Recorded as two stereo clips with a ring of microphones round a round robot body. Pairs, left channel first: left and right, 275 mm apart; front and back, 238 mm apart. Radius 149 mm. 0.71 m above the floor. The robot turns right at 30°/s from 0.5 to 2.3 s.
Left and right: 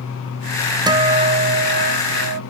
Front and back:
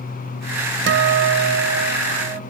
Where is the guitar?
160° right, 0.7 m; by 2.4 s 120° right, 0.7 m.